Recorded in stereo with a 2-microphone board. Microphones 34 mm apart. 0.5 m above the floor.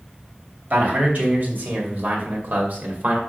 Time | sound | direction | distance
0.7 | a man speaking | 55° right (ahead or behind) | 2.5 m